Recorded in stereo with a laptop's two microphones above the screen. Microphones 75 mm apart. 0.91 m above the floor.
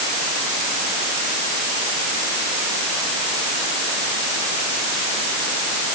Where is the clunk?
No clunk in this recording.